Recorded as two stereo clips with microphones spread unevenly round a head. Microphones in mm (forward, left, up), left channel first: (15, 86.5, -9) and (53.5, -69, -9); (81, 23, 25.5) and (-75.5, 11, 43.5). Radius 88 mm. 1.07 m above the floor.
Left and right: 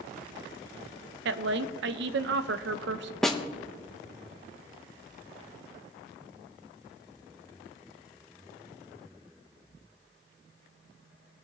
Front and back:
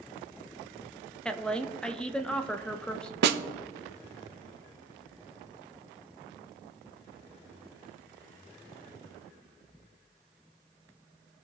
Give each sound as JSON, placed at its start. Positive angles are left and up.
{"t": 1.2, "sound": "a woman speaking", "azimuth_deg": -75, "distance_m": 0.7}
{"t": 3.2, "sound": "a snare drum", "azimuth_deg": -170, "distance_m": 0.7}